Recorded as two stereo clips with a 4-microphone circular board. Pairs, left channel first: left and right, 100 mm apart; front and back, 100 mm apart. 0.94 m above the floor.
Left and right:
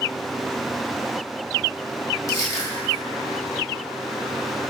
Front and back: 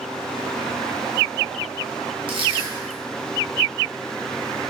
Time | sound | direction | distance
2.3 | crushing | 145° left | 0.7 m